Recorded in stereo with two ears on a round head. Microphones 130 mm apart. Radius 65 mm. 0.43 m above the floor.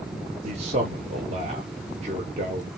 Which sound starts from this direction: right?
A man speaking, at 0.4 s.